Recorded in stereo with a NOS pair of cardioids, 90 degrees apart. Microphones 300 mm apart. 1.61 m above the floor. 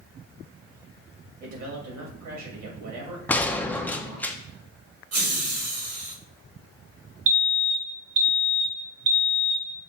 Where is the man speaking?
65° right, 2 m.